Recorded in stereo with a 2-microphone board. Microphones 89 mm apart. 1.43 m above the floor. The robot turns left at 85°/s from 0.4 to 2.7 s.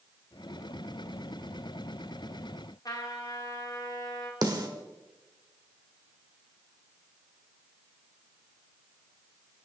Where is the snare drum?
45° right (ahead or behind), 1.5 m.